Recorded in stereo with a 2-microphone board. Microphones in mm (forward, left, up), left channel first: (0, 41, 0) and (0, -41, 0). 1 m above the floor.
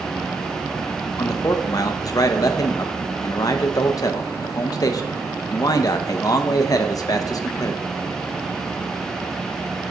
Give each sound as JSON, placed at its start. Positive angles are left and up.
{"t": 1.2, "sound": "a man speaking", "side_deg": 45, "distance_m": 0.6}